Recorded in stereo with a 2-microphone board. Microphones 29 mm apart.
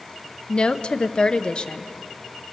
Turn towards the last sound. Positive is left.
turn(degrees=35)  # may be behind; listen again after turning